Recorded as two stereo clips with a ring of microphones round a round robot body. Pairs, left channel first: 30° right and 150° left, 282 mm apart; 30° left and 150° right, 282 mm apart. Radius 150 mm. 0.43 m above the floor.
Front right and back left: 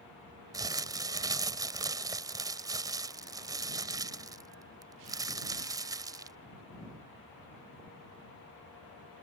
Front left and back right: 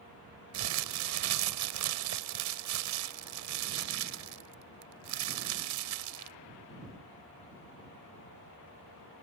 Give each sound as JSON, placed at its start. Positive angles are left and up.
{"t": 0.5, "sound": "crumpling", "azimuth_deg": -135}